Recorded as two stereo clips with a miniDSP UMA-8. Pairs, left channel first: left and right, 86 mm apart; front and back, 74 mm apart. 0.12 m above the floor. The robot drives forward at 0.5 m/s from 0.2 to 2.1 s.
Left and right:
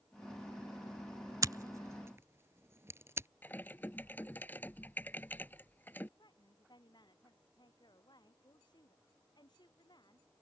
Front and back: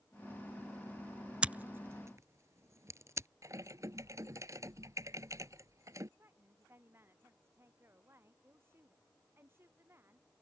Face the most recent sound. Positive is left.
turn(degrees=125)